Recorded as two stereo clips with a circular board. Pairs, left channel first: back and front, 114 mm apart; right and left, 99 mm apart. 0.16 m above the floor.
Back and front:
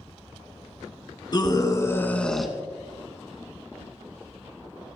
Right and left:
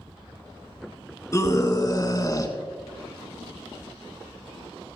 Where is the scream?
140° right, 2 m; by 5.0 s 5° right, 3 m.